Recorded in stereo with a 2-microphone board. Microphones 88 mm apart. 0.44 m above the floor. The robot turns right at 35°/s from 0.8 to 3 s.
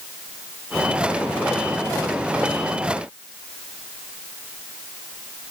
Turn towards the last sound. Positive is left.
No sound to turn to.